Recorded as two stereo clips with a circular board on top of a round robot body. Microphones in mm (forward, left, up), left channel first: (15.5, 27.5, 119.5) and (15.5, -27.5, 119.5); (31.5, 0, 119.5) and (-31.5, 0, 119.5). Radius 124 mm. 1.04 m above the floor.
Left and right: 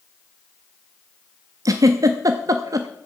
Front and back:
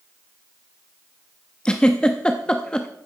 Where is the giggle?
80° right, 0.6 m.